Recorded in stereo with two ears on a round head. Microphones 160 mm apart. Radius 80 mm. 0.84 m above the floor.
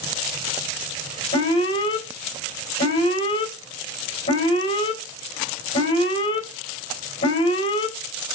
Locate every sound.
1.3 s an alarm: 35° left (ahead or behind), 4.5 m